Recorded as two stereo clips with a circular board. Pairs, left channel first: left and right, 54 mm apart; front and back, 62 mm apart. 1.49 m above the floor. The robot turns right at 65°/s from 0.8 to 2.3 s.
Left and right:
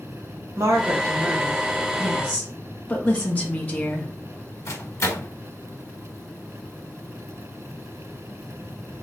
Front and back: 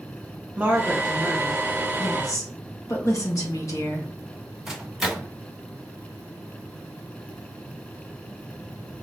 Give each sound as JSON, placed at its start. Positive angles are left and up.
{"t": 0.6, "sound": "a woman speaking", "azimuth_deg": -120, "distance_m": 1.5}
{"t": 2.0, "sound": "a woman speaking", "azimuth_deg": 10, "distance_m": 1.5}
{"t": 4.7, "sound": "a microwave", "azimuth_deg": 95, "distance_m": 1.3}